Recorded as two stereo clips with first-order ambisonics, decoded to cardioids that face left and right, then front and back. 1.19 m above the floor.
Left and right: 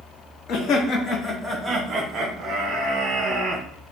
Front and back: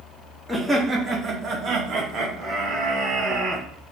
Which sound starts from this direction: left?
Laughter, at 0.5 s.